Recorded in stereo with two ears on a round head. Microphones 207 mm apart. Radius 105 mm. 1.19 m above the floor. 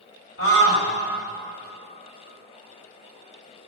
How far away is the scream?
About 5.5 m.